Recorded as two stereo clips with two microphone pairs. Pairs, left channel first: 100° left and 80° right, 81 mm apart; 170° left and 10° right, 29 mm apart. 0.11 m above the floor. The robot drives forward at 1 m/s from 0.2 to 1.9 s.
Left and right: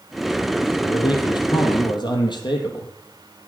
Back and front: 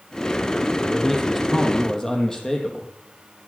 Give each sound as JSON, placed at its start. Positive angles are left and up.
{"t": 0.8, "sound": "a man speaking", "azimuth_deg": 80, "distance_m": 3.5}